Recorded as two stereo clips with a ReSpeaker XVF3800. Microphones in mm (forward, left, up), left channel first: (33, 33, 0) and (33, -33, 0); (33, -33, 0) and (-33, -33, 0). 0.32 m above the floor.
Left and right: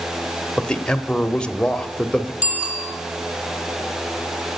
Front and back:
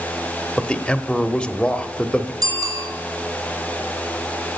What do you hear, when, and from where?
0.6 s a man speaking: 40° left, 0.9 m
2.4 s a bicycle bell: 155° right, 6 m